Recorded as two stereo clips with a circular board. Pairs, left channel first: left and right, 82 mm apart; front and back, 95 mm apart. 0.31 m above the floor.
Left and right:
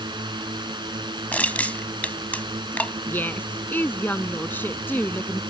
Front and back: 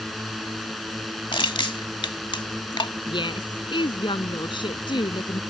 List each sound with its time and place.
0.0 s a drone: 90° right
1.3 s crushing: 20° left
3.1 s a woman speaking: 25° left